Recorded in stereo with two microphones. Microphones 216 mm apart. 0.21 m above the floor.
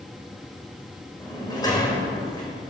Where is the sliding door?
15° left (ahead or behind), 4 m.